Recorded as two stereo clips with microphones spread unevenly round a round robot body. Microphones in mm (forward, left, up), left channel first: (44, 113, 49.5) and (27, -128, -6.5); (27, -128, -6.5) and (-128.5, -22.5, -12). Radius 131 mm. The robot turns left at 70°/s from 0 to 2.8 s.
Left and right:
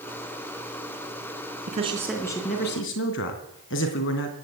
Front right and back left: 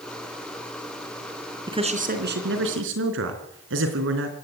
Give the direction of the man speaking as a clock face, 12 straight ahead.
5 o'clock.